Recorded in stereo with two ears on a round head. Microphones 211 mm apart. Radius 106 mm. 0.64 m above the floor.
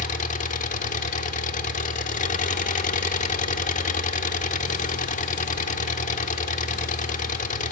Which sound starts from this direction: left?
An engine running, at 0.0 s.